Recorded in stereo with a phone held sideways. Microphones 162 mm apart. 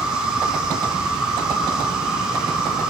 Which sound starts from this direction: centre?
An insect, at 0.0 s.